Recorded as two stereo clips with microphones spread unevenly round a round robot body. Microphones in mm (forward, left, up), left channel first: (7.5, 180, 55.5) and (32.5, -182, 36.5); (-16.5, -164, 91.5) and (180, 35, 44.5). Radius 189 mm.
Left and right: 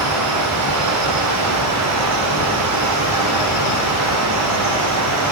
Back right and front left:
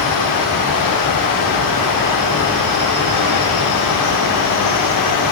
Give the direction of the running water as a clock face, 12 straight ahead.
4 o'clock.